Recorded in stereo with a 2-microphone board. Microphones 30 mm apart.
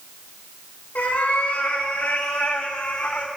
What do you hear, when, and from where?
0.9 s a cat meowing: 75° left (ahead or behind), 3.5 m; by 3.3 s 55° left (ahead or behind), 1.7 m